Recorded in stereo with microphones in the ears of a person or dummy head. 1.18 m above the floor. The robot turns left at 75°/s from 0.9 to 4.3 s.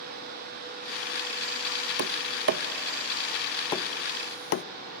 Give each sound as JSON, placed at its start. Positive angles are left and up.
{"t": 2.0, "sound": "tapping", "side_deg": -60, "distance_m": 0.5}